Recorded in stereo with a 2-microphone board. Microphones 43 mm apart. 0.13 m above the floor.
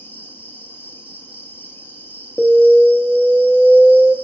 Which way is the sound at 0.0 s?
65° left (ahead or behind).